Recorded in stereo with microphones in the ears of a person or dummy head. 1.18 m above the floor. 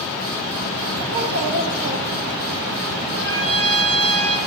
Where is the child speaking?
35° right (ahead or behind), 1.1 m.